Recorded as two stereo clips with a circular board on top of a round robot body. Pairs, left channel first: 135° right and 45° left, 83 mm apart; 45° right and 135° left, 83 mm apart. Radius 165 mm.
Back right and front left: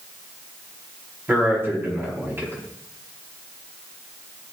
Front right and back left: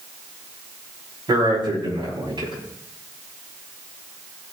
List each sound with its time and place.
1.3 s a man speaking: 110° left, 5.5 m